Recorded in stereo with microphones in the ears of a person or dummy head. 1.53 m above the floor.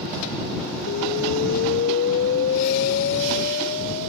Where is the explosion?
40° left (ahead or behind).